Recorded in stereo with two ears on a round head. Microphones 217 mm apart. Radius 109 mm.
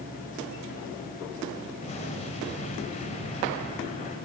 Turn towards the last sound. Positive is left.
turn(degrees=30)  # may be behind; listen again after turning